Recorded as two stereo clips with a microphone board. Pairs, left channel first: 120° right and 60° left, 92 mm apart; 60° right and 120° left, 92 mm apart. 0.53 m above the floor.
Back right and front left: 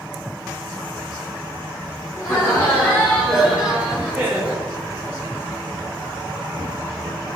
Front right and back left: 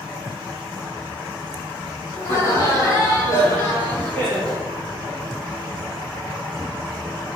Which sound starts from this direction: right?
Laughter, at 2.2 s.